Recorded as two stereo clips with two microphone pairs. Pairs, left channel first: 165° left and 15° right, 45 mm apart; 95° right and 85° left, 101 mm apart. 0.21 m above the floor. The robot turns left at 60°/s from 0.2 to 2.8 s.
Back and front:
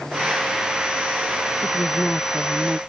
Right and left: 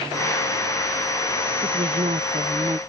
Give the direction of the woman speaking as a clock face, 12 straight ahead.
8 o'clock.